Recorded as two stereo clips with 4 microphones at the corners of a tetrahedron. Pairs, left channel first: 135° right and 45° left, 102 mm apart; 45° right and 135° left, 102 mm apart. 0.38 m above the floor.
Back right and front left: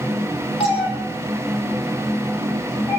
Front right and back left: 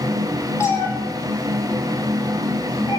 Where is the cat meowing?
110° right, 4 m; by 3.0 s 75° right, 6 m.